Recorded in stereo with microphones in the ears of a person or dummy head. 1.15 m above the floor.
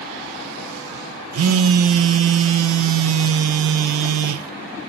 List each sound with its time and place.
1.3 s a phone buzzing: 80° right, 0.6 m